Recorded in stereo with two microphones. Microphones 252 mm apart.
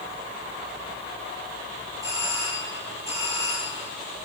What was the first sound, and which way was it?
A doorbell, 10° right (ahead or behind).